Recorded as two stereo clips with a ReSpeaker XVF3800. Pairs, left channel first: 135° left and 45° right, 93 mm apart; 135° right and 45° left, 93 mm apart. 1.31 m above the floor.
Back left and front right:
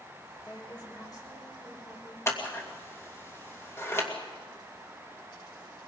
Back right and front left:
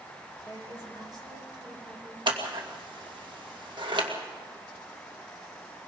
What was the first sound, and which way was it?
A woman speaking, 90° left.